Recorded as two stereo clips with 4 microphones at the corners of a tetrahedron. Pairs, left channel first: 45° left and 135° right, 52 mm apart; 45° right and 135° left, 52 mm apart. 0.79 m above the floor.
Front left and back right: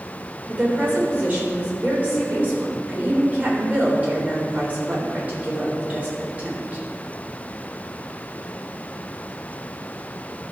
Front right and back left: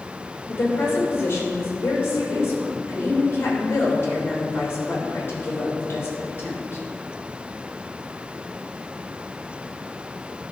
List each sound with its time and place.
0.5 s a woman speaking: 80° right, 3.5 m